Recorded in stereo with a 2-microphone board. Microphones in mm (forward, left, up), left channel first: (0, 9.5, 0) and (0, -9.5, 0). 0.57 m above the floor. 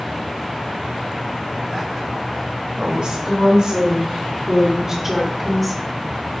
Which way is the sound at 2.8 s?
65° right (ahead or behind).